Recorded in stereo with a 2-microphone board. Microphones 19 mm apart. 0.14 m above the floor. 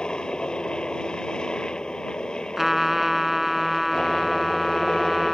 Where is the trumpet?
20° right (ahead or behind).